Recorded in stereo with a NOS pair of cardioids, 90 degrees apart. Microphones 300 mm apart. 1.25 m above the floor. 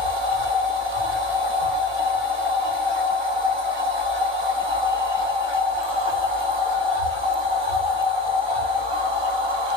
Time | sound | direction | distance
0.0 | a machine running | 20° right | 1.3 m